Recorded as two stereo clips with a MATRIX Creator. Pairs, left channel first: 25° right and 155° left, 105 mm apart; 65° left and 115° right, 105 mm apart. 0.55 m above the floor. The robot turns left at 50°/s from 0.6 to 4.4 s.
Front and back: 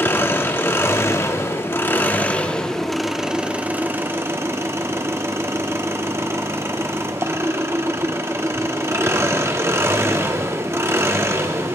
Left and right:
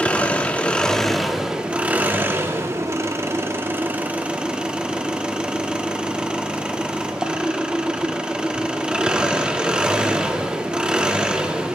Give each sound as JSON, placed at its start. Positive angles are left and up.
{"t": 0.0, "sound": "an engine running", "azimuth_deg": 10, "distance_m": 0.7}